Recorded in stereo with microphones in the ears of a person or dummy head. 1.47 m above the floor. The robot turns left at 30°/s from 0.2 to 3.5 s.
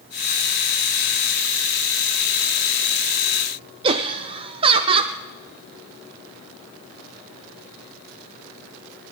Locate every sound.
3.8 s laughter: 30° right (ahead or behind), 0.6 m